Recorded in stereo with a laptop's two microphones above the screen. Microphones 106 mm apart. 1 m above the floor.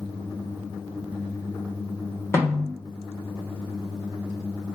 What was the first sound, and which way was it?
A snare drum, 25° left (ahead or behind).